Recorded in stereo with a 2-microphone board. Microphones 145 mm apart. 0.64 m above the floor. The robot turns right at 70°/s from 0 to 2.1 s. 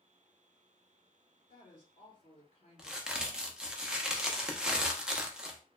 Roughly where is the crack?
Centre.